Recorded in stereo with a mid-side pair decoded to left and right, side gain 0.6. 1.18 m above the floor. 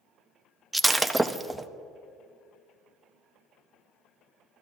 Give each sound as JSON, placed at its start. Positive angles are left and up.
{"t": 0.7, "sound": "breaking glass", "azimuth_deg": -10, "distance_m": 0.7}